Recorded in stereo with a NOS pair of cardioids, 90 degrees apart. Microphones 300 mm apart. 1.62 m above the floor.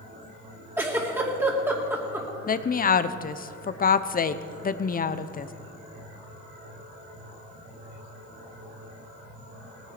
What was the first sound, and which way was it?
A giggle, 10° right.